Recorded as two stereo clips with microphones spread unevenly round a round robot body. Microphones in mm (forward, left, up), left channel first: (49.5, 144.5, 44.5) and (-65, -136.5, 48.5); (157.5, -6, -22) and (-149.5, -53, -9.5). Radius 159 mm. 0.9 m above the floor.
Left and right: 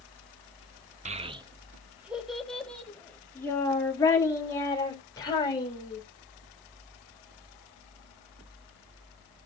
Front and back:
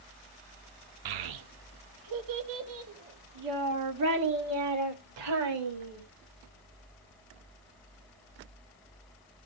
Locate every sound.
1.1 s a child speaking: straight behind, 0.9 m; by 6.0 s 145° left, 3.5 m